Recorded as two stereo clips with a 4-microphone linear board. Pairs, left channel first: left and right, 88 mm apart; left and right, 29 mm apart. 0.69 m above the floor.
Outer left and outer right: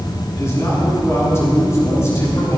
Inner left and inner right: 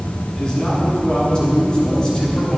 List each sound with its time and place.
0.3 s a man speaking: 30° left (ahead or behind), 7 m